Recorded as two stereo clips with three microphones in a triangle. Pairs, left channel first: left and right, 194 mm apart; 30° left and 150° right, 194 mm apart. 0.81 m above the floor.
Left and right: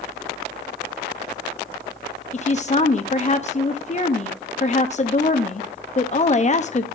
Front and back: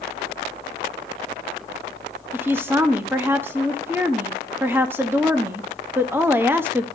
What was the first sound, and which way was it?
A woman speaking, 135° left.